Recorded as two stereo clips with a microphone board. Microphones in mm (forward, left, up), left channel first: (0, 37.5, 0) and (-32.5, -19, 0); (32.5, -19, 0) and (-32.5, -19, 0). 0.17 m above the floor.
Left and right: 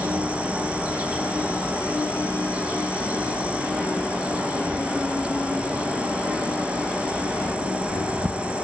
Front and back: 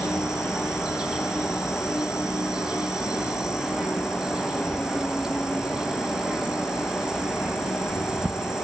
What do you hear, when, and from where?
0.0 s an insect: 125° right, 2 m